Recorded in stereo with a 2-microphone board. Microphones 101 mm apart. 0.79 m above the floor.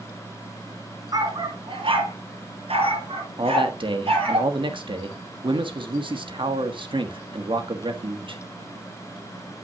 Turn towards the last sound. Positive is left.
turn(degrees=-55)  # may be behind; listen again after turning